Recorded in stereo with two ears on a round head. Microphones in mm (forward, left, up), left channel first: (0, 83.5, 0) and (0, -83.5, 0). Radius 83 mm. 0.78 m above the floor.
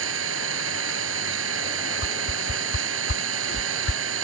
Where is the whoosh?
65° left (ahead or behind).